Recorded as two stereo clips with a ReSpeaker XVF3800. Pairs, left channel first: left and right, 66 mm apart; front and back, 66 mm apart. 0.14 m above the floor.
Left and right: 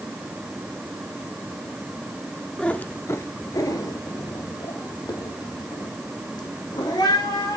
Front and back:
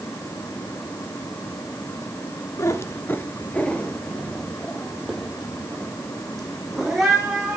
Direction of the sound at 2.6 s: 15° left.